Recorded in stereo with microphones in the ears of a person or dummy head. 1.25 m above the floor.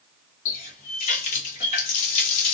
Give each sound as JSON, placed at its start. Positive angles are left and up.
{"t": 0.5, "sound": "a running tap", "side_deg": 40, "distance_m": 1.3}